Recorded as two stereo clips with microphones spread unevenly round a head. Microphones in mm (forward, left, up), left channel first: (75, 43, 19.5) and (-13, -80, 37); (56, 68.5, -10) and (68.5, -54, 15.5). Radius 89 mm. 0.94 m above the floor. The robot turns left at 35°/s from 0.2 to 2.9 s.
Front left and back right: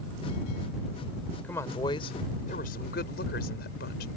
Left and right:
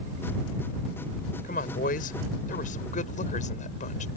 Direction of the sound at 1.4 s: 135° left.